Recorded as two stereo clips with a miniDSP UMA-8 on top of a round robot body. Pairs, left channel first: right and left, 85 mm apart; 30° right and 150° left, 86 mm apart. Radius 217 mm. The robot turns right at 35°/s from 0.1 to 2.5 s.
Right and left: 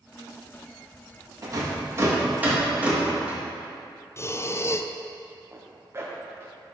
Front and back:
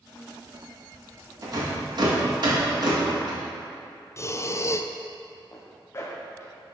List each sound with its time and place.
1.4 s a rattle: 120° left, 2.0 m; by 3.4 s 160° left, 2.0 m
4.2 s breathing: 60° right, 0.6 m
5.5 s a zipper: 30° left, 0.7 m